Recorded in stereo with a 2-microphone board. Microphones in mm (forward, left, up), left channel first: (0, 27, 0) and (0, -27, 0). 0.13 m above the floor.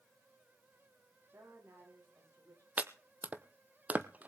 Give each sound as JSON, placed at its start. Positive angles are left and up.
{"t": 1.3, "sound": "a woman speaking", "side_deg": -55, "distance_m": 8.0}
{"t": 2.8, "sound": "chopping", "side_deg": -30, "distance_m": 0.9}